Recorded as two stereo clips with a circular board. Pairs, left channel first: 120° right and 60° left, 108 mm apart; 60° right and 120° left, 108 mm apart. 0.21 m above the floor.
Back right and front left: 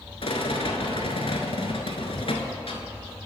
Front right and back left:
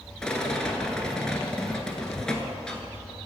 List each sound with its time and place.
0.2 s a rattle: 145° right, 0.9 m